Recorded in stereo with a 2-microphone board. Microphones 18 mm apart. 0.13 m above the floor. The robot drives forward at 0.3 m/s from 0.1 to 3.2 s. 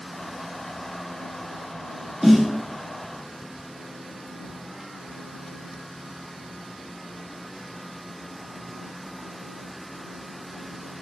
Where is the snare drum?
20° right (ahead or behind), 1.5 m.